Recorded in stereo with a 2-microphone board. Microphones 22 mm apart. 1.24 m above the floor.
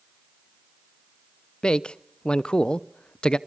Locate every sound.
1.6 s a man speaking: 50° left (ahead or behind), 0.7 m